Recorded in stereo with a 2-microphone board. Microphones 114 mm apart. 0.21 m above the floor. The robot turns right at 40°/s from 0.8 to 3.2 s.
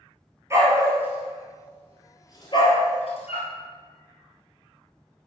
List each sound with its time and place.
0.5 s a dog barking: 25° right (ahead or behind), 1.6 m; by 3.5 s 65° left (ahead or behind), 1.6 m